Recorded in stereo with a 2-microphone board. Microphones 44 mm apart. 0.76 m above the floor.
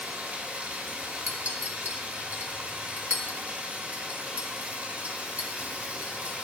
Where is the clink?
40° right (ahead or behind), 0.9 m.